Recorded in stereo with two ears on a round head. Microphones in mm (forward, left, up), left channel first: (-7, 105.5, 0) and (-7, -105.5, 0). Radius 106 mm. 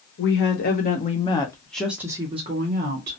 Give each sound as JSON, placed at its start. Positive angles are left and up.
{"t": 0.2, "sound": "a woman speaking", "side_deg": 50, "distance_m": 1.1}